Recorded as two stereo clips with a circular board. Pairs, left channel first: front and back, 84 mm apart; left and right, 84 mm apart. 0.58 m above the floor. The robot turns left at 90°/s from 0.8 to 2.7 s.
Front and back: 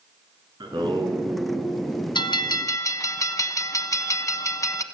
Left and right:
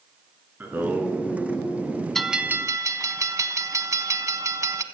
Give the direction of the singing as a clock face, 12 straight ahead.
5 o'clock.